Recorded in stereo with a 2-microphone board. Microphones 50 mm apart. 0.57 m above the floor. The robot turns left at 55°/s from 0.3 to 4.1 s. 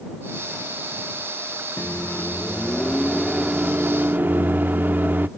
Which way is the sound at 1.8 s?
70° left.